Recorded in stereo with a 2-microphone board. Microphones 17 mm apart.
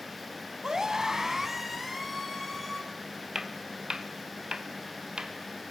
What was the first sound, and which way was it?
A scream, 35° right (ahead or behind).